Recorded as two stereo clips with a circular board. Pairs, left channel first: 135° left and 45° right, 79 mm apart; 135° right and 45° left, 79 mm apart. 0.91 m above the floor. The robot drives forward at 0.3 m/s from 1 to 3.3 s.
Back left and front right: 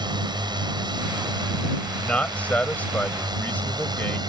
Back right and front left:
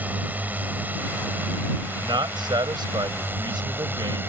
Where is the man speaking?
60° left; by 4.2 s 65° left.